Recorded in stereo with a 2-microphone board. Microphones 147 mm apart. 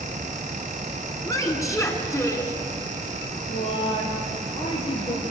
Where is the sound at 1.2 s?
20° left (ahead or behind), 2.5 m.